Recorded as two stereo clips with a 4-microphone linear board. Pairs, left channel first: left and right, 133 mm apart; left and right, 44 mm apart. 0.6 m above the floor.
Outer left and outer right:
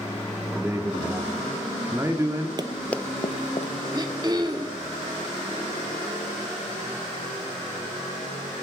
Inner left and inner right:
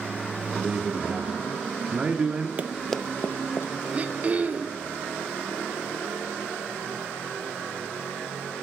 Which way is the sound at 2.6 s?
35° right (ahead or behind).